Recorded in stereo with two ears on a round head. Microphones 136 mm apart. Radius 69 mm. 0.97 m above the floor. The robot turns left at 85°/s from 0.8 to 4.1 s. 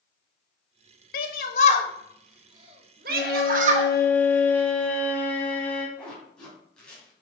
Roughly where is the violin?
Left.